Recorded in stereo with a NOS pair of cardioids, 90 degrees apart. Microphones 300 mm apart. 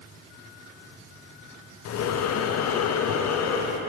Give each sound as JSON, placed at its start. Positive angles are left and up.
{"t": 1.9, "sound": "breathing", "azimuth_deg": 60, "distance_m": 0.8}